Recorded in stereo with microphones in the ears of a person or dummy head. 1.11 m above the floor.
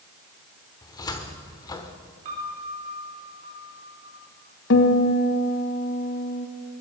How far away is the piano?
About 3.5 m.